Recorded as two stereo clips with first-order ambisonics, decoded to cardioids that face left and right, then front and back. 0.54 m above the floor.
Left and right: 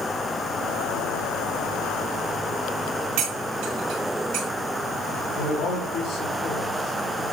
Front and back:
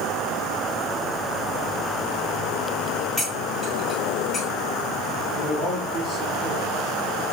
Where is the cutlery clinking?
75° right, 4 m.